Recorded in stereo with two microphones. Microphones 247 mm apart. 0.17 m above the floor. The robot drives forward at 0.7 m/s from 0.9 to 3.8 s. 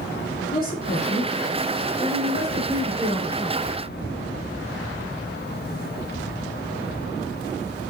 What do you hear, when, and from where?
0.5 s a woman speaking: 35° left (ahead or behind), 2.0 m; by 3.7 s 20° left (ahead or behind), 3.5 m